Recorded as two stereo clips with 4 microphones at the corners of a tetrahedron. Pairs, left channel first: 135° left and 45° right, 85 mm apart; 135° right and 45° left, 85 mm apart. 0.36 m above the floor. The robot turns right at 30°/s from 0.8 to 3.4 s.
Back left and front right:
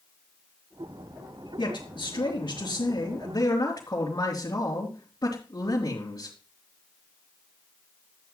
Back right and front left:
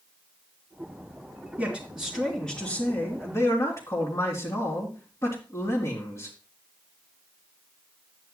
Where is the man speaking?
125° left, 3.5 m; by 6.3 s straight behind, 3.5 m.